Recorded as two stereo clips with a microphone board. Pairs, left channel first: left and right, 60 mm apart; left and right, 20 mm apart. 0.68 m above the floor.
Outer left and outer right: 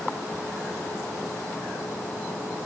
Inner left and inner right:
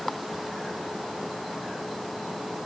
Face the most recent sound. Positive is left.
No sound to turn to.